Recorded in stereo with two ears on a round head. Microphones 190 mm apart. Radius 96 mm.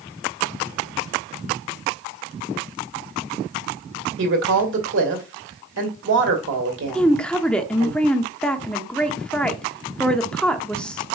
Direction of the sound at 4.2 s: 60° right (ahead or behind).